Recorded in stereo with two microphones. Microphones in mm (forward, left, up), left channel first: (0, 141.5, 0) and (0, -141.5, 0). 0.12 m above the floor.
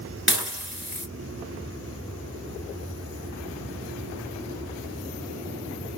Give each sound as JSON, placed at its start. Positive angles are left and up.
{"t": 0.3, "sound": "dishes clattering", "side_deg": 40, "distance_m": 1.3}